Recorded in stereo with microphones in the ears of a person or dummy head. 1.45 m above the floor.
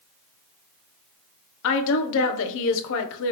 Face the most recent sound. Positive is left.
turn(degrees=65)  # may be behind; listen again after turning